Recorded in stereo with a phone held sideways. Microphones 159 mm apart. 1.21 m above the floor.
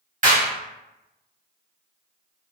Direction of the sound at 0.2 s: 55° right (ahead or behind).